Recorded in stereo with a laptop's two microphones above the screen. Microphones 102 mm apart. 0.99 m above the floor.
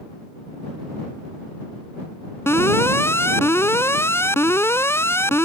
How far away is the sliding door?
I don't hear a sliding door.